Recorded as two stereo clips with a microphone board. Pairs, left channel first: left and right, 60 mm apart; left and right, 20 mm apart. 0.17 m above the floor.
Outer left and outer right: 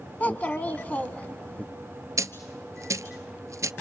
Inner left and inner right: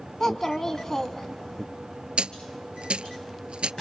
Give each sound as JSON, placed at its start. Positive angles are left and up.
{"t": 0.2, "sound": "a child speaking", "side_deg": 30, "distance_m": 1.0}
{"t": 2.2, "sound": "a dropped coin", "side_deg": -75, "distance_m": 0.8}